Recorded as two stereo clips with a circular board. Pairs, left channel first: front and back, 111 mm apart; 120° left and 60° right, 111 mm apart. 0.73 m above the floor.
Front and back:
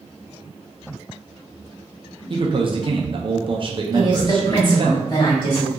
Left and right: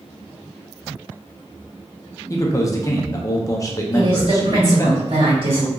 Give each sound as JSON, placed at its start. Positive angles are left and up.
{"t": 2.3, "sound": "a man speaking", "azimuth_deg": 170, "distance_m": 0.6}
{"t": 3.9, "sound": "a woman speaking", "azimuth_deg": -40, "distance_m": 1.8}